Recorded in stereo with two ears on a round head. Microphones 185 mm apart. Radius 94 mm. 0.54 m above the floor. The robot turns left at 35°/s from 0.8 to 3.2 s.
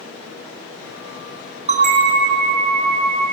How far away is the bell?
About 4 m.